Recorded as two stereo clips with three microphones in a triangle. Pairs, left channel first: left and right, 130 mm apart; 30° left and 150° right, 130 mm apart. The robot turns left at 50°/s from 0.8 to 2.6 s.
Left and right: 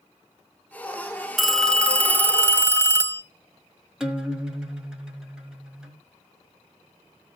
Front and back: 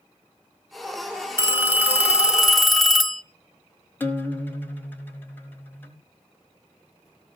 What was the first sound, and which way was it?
A phone ringing, straight behind.